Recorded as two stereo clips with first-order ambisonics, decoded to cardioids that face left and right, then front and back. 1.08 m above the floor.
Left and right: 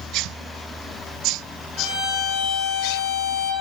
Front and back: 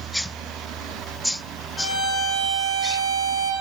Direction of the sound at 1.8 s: 35° right.